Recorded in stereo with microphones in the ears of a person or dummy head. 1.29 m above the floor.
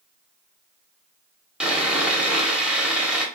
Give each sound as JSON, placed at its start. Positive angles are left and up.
{"t": 1.6, "sound": "sawing", "side_deg": -5, "distance_m": 0.7}